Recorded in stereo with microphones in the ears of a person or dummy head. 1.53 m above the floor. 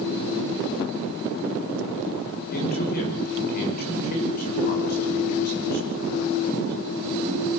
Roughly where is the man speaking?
Left.